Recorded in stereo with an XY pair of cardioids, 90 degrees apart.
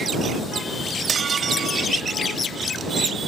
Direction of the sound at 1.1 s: 55° right.